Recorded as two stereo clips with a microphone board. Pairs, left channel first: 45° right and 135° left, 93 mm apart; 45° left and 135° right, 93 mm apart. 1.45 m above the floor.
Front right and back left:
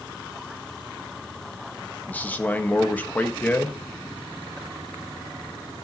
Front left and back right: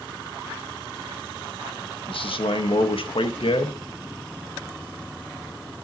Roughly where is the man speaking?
Ahead left.